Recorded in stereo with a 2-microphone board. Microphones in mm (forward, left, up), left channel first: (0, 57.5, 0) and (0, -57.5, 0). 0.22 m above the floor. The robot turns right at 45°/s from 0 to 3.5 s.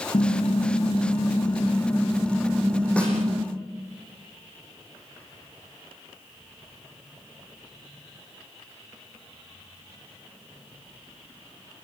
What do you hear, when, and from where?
0.1 s typing on a keyboard: 80° left, 2 m; by 3.5 s 130° right, 2 m
3.0 s a snare drum: 10° left (ahead or behind), 7.5 m; by 3.2 s centre (ahead or behind), 7.5 m